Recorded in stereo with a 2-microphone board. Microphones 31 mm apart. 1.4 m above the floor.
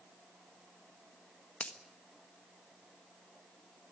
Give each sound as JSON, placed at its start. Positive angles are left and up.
{"t": 1.6, "sound": "a finger snap", "side_deg": 50, "distance_m": 1.4}